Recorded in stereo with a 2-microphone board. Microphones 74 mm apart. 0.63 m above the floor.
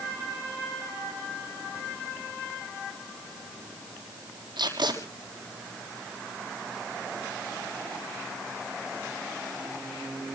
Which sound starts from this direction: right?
Tape being pulled, at 4.6 s.